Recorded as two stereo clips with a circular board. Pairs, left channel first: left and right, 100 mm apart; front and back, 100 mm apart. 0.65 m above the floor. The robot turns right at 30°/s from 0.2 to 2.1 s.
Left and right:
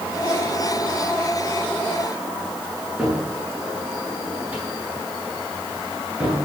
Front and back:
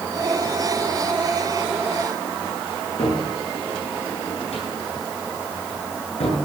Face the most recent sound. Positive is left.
turn(degrees=-15)